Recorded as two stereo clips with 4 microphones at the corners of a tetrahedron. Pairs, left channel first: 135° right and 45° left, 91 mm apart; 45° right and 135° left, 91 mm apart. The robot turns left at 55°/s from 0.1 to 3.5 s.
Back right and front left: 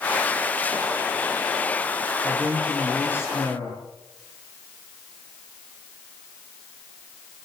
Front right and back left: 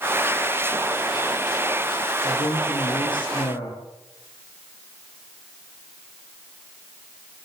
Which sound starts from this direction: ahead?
A man speaking, at 2.2 s.